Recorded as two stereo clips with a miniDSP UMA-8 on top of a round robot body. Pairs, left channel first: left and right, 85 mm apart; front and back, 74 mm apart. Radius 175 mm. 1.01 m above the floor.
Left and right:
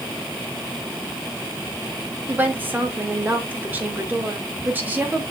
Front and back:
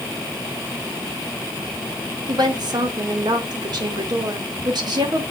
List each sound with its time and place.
2.3 s a woman speaking: 160° right, 2.5 m